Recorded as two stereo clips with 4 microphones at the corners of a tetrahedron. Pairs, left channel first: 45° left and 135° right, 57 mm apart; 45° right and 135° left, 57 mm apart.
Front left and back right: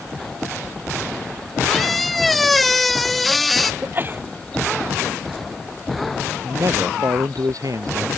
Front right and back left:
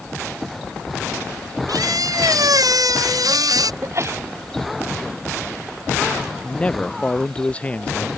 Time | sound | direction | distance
1.7 | a squeak | 135° left | ?
3.8 | a sneeze | 170° left | ?
6.4 | a man speaking | 115° right | ?